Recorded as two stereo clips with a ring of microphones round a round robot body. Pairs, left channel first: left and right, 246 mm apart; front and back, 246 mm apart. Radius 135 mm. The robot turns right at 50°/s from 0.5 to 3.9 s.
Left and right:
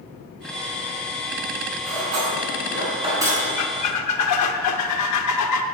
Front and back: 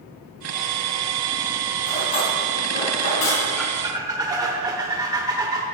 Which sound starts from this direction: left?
A squeak, at 3.6 s.